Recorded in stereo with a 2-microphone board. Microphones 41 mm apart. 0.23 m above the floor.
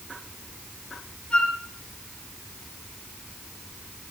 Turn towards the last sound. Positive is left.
turn(degrees=25)  # may be behind; listen again after turning